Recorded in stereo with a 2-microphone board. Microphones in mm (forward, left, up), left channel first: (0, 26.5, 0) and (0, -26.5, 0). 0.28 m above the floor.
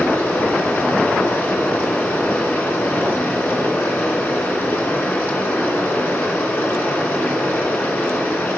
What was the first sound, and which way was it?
Running water, 35° left (ahead or behind).